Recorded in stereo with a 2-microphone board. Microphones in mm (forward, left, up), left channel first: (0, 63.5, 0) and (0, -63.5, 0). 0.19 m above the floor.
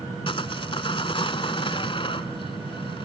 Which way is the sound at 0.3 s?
45° left (ahead or behind).